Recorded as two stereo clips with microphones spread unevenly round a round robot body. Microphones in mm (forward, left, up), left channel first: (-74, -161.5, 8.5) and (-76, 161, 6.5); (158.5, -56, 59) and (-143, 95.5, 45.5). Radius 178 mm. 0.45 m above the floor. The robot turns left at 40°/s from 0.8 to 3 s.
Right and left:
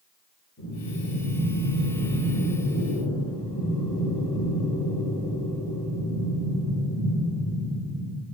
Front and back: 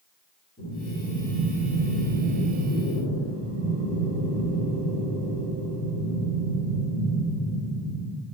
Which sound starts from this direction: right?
Breathing, at 0.6 s.